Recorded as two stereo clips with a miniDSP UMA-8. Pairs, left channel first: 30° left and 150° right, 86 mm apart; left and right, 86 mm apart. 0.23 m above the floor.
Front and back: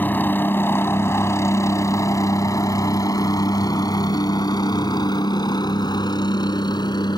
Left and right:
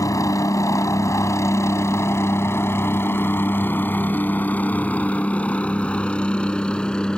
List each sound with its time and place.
0.0 s a helicopter: 85° left; by 7.2 s 10° left